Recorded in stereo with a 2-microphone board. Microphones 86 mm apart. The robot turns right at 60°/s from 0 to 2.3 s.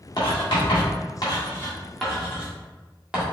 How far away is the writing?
About 1.5 m.